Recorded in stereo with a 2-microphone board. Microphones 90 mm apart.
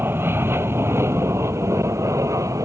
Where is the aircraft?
25° right (ahead or behind); by 2.6 s 40° right (ahead or behind).